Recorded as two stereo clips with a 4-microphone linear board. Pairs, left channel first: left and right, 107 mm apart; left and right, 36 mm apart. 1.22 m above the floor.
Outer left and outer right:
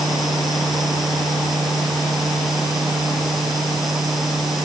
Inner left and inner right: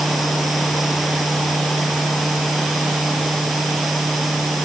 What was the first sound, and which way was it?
Only background noise.